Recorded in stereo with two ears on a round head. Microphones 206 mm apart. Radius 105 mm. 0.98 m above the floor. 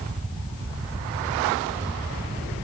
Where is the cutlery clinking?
No cutlery clinking in this recording.